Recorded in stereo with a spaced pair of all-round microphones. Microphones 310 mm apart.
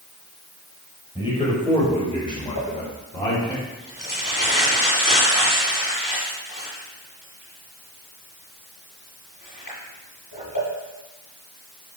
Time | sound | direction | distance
1.1 | a man speaking | 15° left (ahead or behind) | 5.5 m
2.5 | crumpling | 80° left | 6 m